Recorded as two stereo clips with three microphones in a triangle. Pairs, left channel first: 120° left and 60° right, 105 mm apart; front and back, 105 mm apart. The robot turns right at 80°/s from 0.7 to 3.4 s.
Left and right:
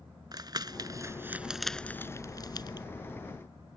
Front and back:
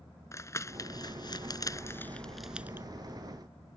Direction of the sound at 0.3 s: 45° right.